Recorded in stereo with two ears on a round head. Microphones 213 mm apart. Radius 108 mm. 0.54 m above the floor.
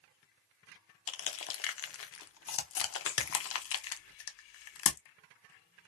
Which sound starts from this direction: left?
Crushing, at 1.1 s.